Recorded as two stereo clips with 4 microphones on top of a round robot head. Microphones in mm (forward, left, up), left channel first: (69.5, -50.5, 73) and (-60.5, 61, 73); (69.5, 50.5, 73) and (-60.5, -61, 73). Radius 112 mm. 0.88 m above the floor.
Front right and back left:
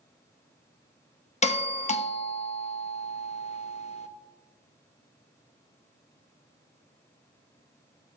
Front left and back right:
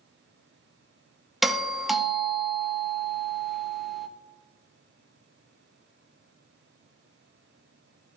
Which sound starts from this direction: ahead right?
A doorbell, at 1.4 s.